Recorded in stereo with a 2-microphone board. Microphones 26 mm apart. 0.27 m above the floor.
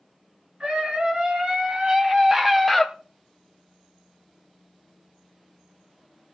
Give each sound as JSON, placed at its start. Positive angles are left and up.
{"t": 0.6, "sound": "a scream", "side_deg": -40, "distance_m": 4.0}